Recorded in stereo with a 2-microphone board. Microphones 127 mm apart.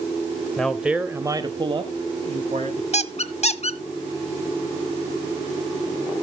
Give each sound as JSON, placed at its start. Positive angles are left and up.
{"t": 0.6, "sound": "a man speaking", "side_deg": 5, "distance_m": 1.1}
{"t": 2.9, "sound": "a squeak", "side_deg": 55, "distance_m": 0.7}